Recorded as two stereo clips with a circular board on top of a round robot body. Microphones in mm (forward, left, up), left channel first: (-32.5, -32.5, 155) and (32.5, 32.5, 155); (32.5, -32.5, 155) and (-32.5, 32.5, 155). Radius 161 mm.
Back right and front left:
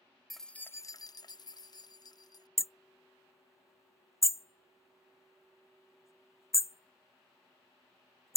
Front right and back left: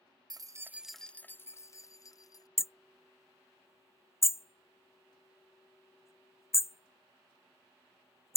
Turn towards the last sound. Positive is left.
turn(degrees=-90)